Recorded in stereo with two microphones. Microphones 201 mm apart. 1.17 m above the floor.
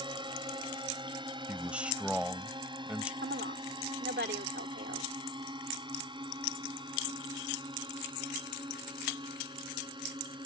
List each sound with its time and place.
0.0 s a drone: 25° right (ahead or behind); by 10.5 s 20° right (ahead or behind)
1.5 s a man speaking: 5° right (ahead or behind)
3.2 s a woman speaking: 60° right (ahead or behind)